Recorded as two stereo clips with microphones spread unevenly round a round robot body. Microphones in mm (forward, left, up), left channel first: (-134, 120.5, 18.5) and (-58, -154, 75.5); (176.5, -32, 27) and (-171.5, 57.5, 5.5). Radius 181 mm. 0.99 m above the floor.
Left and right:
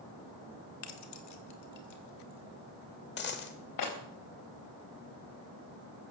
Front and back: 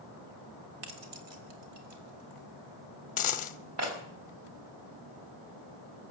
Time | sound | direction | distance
0.8 | keys jangling | 135° left | 1.8 m
3.2 | a dropped coin | 40° left | 0.8 m